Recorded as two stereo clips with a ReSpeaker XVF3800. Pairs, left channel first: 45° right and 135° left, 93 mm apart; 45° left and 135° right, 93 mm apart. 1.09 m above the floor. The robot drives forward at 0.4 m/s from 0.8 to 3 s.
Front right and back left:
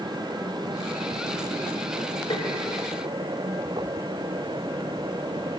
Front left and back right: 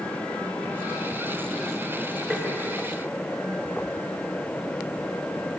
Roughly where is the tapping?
Ahead right.